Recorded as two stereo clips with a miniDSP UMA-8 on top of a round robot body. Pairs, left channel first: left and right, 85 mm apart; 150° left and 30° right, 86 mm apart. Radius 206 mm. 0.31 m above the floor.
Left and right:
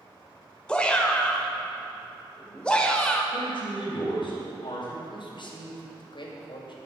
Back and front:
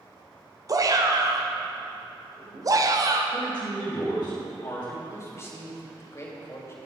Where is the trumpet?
I don't hear a trumpet.